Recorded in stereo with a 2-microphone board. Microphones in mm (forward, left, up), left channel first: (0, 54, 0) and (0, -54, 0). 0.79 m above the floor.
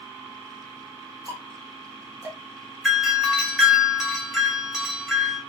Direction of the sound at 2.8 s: 5° right (ahead or behind).